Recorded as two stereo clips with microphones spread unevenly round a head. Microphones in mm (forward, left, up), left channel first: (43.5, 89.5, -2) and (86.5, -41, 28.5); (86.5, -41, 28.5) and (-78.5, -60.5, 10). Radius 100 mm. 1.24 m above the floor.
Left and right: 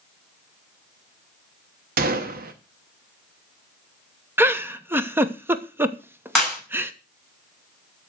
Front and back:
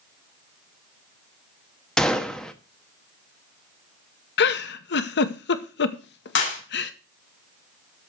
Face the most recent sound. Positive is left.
turn(degrees=20)